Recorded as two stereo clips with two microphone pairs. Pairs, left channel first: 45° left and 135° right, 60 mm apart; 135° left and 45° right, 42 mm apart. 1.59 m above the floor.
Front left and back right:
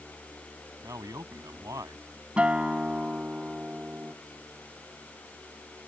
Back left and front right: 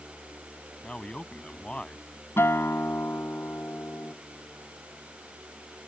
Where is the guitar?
155° left.